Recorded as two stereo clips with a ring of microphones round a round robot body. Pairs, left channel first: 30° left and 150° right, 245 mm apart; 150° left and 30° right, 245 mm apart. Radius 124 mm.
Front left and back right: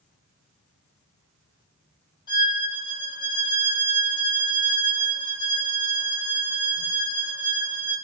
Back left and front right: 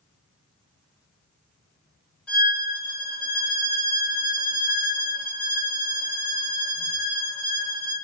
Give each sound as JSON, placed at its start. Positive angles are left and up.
{"t": 2.3, "sound": "a violin", "azimuth_deg": 70, "distance_m": 1.0}